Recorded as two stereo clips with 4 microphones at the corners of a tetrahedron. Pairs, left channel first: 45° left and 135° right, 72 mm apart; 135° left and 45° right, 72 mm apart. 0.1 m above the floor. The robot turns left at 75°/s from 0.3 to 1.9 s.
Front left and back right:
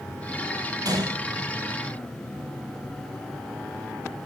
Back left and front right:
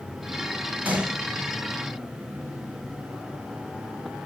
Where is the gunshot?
110° right, 1.0 m; by 1.2 s 135° right, 1.0 m.